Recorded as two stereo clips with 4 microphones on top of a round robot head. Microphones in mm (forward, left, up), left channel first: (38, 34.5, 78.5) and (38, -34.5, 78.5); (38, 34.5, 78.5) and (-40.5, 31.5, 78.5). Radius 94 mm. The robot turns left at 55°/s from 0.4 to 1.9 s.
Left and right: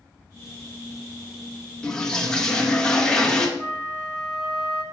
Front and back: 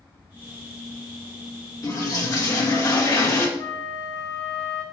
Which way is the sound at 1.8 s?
20° left.